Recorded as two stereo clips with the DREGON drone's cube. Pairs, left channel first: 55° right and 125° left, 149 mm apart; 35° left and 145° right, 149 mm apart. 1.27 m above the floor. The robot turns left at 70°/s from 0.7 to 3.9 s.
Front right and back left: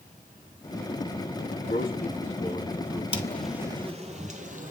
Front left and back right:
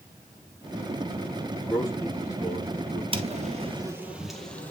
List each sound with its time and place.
1.6 s a man speaking: 50° right, 3 m; by 3.0 s 150° right, 3 m
3.1 s footsteps: 105° right, 1.9 m; by 4.7 s 110° left, 2 m